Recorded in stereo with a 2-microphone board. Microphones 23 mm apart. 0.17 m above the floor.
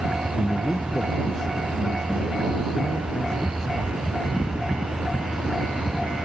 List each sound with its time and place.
0.4 s a man speaking: 35° left (ahead or behind); by 4.5 s 30° left (ahead or behind)